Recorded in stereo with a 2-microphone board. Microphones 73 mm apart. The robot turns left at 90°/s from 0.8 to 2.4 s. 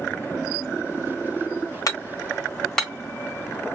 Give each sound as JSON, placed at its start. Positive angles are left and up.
{"t": 1.9, "sound": "hammering", "side_deg": 55, "distance_m": 1.1}